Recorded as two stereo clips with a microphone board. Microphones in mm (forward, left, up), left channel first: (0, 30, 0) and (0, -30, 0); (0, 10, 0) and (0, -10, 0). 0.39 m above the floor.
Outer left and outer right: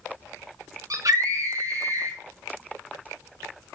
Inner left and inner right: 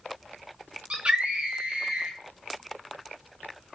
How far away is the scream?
About 4 m.